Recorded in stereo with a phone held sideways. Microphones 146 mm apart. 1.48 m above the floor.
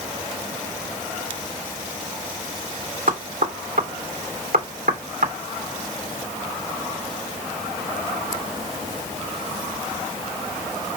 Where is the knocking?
75° right (ahead or behind), 3.5 m.